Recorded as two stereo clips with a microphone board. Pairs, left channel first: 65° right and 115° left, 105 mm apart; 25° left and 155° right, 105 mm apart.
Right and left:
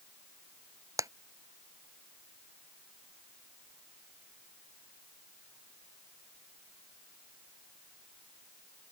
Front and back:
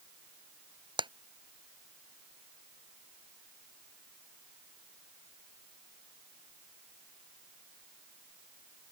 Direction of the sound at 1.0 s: 170° left.